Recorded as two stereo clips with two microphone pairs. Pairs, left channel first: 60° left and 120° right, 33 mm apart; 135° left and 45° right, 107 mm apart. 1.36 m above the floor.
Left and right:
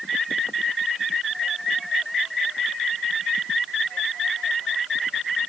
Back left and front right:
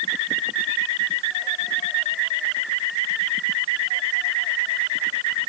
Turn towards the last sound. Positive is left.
No sound to turn to.